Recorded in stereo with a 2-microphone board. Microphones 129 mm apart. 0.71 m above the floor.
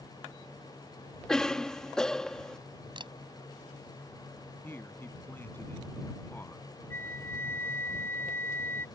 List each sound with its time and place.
1.3 s a cough: 5° left (ahead or behind)
3.0 s a camera shutter: 40° right (ahead or behind)
4.6 s a man speaking: 15° left (ahead or behind)
6.9 s a flute: 20° left (ahead or behind)